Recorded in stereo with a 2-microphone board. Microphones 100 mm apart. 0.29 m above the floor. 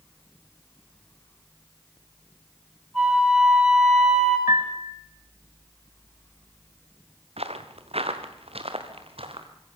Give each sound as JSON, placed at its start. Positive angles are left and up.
{"t": 2.9, "sound": "a flute", "side_deg": -5, "distance_m": 9.0}
{"t": 4.5, "sound": "a piano", "side_deg": -45, "distance_m": 1.9}
{"t": 7.4, "sound": "footsteps", "side_deg": -80, "distance_m": 2.5}